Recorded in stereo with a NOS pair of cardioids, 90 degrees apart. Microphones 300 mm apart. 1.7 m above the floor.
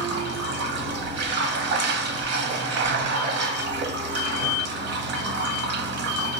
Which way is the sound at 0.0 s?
60° right.